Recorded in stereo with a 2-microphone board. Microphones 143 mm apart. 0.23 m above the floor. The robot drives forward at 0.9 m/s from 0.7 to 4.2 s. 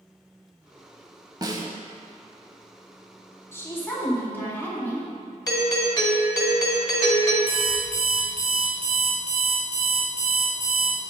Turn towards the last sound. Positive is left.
turn(degrees=-50)  # may be behind; listen again after turning